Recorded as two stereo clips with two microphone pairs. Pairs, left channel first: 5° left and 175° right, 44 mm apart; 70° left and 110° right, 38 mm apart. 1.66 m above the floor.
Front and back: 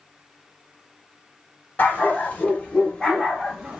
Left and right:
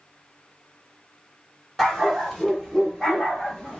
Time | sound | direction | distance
1.8 | a dog barking | 15° right | 1.7 m